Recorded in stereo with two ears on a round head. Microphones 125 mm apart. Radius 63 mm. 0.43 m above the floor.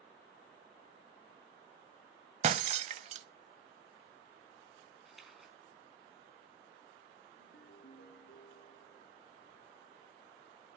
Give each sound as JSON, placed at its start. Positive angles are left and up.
{"t": 2.4, "sound": "breaking glass", "side_deg": -50, "distance_m": 0.6}
{"t": 5.0, "sound": "a splash", "side_deg": 0, "distance_m": 4.5}
{"t": 7.4, "sound": "a ringtone", "side_deg": 85, "distance_m": 2.5}